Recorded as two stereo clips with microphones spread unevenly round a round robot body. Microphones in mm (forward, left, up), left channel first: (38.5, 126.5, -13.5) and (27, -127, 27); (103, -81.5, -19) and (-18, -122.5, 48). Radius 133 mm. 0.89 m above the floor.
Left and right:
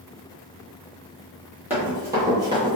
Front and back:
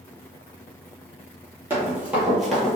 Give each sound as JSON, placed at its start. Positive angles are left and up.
{"t": 1.7, "sound": "running footsteps", "azimuth_deg": -165, "distance_m": 1.2}